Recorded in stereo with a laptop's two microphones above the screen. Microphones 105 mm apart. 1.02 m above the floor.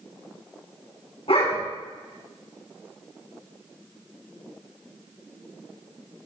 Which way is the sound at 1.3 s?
70° left (ahead or behind).